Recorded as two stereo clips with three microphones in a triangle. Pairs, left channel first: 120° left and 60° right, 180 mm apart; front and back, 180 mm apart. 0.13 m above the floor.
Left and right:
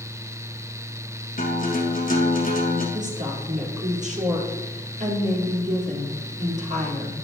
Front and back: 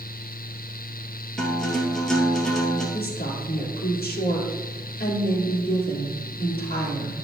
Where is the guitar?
85° left, 2 m.